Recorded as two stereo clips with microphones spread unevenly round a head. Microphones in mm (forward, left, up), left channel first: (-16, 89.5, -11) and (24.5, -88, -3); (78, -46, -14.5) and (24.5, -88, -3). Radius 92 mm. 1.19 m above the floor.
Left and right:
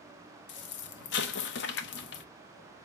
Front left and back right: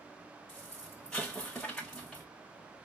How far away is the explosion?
About 0.6 m.